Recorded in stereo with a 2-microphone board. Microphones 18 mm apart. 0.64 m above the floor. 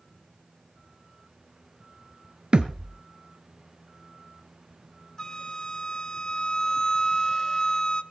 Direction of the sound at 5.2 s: 35° left (ahead or behind).